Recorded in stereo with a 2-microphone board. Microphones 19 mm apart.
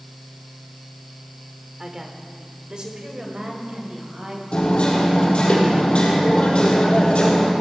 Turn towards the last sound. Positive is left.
turn(degrees=70)  # may be behind; listen again after turning